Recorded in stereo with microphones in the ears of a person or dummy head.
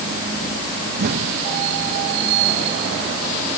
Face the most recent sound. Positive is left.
turn(degrees=-55)  # may be behind; listen again after turning